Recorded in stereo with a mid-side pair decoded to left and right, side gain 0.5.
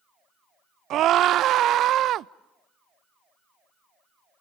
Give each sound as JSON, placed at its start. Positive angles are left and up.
{"t": 0.9, "sound": "a scream", "azimuth_deg": -65, "distance_m": 0.6}